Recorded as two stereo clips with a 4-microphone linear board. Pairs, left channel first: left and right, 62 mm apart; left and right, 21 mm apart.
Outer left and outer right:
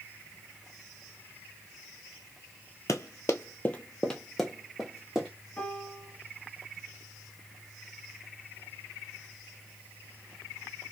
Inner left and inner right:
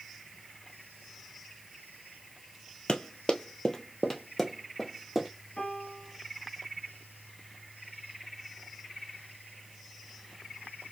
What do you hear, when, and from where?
2.9 s running footsteps: 60° left (ahead or behind), 0.7 m; by 5.3 s 10° right (ahead or behind), 1.6 m
5.6 s a piano: 20° left (ahead or behind), 1.3 m